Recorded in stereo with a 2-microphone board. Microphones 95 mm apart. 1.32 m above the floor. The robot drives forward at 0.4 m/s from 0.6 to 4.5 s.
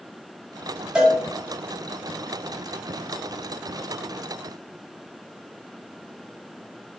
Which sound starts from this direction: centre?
A cowbell, at 0.9 s.